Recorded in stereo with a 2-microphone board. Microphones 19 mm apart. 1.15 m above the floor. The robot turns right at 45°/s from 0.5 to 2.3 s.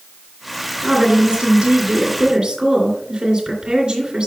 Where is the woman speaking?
130° right, 2.5 m; by 4.3 s 60° right, 2.5 m.